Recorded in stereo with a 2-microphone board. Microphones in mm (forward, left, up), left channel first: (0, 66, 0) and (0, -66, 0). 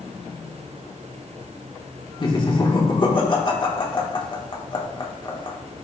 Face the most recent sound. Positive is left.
turn(degrees=40)  # may be behind; listen again after turning